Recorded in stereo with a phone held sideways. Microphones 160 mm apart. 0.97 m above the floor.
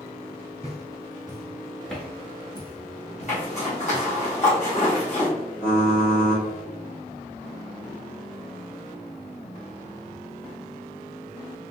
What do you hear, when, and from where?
0.6 s footsteps: 40° right (ahead or behind), 1.2 m; by 4.0 s 55° left (ahead or behind), 1.7 m
3.3 s a zipper: 45° left (ahead or behind), 1.5 m
5.6 s typing on a keyboard: 65° left (ahead or behind), 1.7 m